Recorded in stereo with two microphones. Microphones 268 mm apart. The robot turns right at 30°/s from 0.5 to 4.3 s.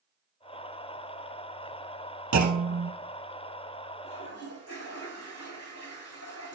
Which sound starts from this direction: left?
A toilet flushing, at 4.0 s.